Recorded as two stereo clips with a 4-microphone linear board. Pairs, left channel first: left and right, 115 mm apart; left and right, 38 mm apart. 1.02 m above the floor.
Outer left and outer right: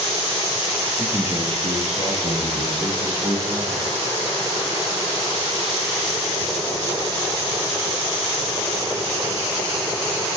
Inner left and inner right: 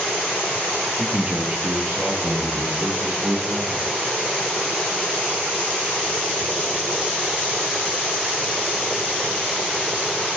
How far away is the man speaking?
About 0.5 m.